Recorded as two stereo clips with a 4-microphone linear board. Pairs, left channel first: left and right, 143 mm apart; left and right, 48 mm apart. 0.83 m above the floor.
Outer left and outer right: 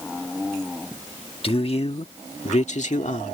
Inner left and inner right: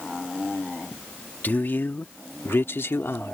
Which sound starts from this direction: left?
A man speaking, at 1.4 s.